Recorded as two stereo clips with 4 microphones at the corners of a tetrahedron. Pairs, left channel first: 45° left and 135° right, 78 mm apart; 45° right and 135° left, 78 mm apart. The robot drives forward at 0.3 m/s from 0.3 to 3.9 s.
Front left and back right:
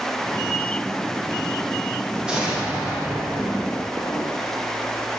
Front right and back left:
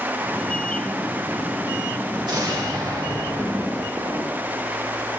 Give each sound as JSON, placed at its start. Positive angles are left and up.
{"t": 2.2, "sound": "an explosion", "azimuth_deg": 150, "distance_m": 1.7}